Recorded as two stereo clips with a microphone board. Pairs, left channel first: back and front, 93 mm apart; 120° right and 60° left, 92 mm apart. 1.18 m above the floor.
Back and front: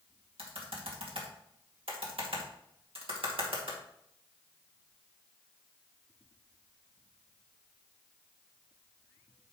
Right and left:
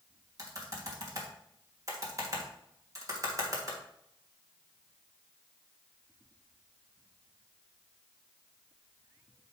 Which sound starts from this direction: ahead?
Typing on a keyboard, at 0.4 s.